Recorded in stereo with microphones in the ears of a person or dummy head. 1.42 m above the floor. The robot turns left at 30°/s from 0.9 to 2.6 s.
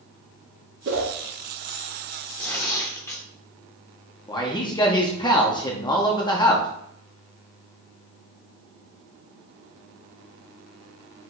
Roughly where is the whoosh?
Right.